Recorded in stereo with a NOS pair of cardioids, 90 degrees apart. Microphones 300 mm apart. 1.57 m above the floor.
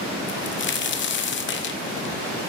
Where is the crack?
40° left, 0.9 m.